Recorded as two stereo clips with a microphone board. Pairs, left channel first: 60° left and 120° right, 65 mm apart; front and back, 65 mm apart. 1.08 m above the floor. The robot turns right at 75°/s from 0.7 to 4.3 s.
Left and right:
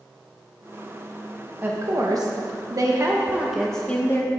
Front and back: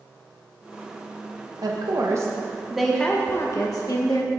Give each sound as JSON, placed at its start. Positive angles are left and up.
{"t": 1.6, "sound": "a woman speaking", "azimuth_deg": 180, "distance_m": 1.0}